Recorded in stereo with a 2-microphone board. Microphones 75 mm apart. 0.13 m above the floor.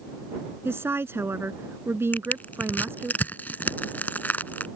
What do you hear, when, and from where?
0.7 s a woman speaking: 35° right (ahead or behind)
2.1 s crushing: 25° left (ahead or behind)